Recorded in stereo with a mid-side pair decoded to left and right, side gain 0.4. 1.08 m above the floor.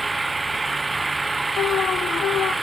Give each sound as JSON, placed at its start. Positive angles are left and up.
{"t": 0.0, "sound": "an engine running", "azimuth_deg": -25}
{"t": 1.6, "sound": "an alarm", "azimuth_deg": 60}